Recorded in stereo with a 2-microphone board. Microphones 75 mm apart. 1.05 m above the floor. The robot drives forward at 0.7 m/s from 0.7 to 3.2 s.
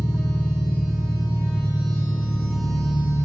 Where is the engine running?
5° left (ahead or behind), 5 m.